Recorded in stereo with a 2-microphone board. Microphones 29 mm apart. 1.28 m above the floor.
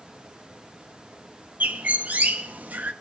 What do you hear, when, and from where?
1.6 s a bird: 75° right (ahead or behind), 1.1 m